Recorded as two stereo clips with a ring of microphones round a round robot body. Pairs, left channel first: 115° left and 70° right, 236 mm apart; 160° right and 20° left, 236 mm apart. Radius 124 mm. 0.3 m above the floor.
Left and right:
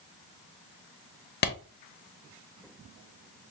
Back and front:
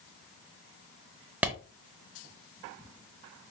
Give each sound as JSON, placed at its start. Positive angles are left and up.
{"t": 1.4, "sound": "a clap", "azimuth_deg": 105, "distance_m": 0.9}